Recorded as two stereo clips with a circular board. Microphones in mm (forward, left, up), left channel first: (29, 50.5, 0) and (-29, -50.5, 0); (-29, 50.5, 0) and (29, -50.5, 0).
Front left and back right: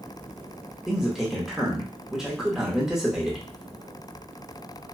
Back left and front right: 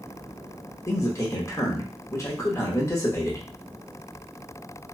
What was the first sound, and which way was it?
A man speaking, 160° left.